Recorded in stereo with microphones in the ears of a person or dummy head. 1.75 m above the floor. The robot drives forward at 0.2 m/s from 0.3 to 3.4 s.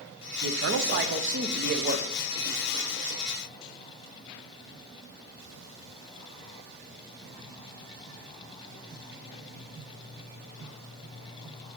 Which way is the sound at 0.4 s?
65° right (ahead or behind).